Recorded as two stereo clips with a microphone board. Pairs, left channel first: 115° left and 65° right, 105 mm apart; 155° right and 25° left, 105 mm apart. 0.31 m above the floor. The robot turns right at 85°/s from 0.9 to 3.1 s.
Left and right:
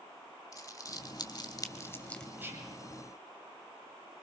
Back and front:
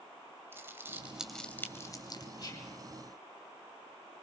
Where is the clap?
No clap in this recording.